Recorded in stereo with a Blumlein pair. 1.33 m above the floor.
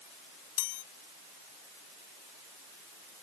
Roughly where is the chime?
Ahead left.